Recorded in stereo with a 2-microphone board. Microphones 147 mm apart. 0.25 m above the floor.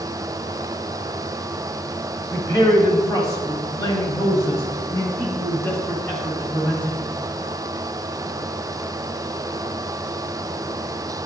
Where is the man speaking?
25° left (ahead or behind), 1.8 m; by 7.0 s 10° left (ahead or behind), 2.5 m.